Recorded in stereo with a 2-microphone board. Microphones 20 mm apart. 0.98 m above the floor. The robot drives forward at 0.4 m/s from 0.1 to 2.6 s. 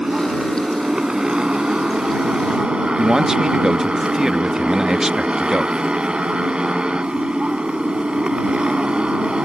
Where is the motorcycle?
45° right (ahead or behind); by 9.4 s 55° right (ahead or behind).